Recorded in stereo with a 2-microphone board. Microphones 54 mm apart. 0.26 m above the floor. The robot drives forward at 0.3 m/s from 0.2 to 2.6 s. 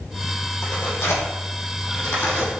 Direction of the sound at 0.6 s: 55° left (ahead or behind).